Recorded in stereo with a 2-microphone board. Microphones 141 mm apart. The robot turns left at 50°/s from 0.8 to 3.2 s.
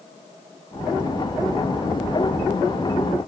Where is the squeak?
I don't hear a squeak.